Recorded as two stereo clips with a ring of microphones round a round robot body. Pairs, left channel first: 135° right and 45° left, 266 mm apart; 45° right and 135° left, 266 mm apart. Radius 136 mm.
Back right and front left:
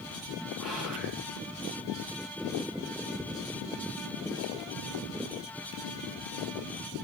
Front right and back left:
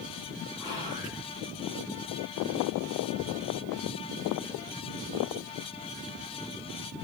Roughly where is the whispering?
Ahead right.